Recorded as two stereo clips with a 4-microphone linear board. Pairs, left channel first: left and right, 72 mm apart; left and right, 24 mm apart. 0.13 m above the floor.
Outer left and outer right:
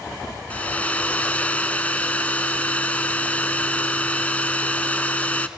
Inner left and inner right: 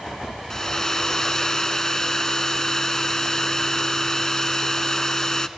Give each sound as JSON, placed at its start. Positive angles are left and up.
{"t": 0.5, "sound": "a hair dryer", "side_deg": 20, "distance_m": 0.7}